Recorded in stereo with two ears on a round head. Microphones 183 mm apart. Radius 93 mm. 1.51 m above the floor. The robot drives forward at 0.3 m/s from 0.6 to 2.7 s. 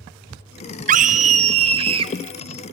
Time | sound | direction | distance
0.9 | a scream | 35° right (ahead or behind) | 0.5 m